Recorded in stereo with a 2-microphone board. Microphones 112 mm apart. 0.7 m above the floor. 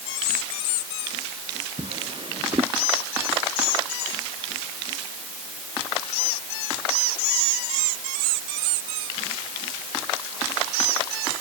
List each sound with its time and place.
1.8 s a drawer: 50° right (ahead or behind)